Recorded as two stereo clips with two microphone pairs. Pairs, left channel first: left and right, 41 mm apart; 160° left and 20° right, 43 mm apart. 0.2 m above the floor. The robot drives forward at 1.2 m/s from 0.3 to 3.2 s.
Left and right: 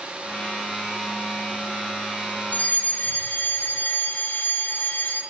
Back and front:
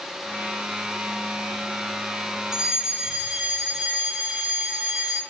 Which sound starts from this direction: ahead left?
A fire alarm, at 2.5 s.